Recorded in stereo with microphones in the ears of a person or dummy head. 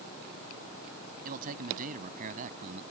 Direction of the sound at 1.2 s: 50° right (ahead or behind).